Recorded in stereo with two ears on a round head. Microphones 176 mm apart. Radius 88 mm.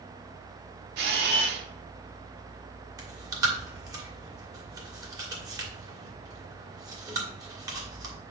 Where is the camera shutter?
60° right (ahead or behind), 1.3 m.